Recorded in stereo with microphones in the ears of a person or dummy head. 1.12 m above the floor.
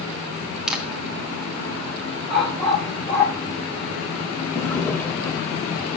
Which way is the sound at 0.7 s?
Centre (ahead or behind).